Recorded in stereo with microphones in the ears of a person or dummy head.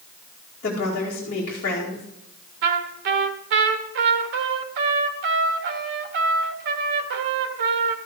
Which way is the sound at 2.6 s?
55° right (ahead or behind).